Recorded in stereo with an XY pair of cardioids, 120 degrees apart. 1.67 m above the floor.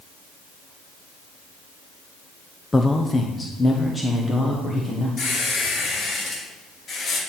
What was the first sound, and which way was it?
A man speaking, 15° left.